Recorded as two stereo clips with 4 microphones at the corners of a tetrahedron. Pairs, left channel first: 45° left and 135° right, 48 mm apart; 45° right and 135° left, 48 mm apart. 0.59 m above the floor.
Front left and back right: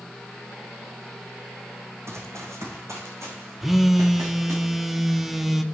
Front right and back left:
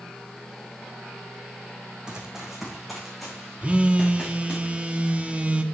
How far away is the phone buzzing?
About 0.8 m.